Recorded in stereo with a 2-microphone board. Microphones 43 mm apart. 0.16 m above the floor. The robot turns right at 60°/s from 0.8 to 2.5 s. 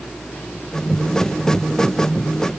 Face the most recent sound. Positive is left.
No sound to turn to.